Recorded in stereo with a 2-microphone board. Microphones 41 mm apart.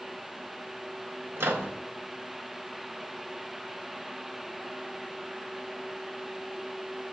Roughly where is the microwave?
Right.